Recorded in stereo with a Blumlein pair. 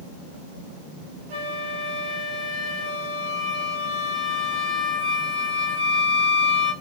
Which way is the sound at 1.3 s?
50° right.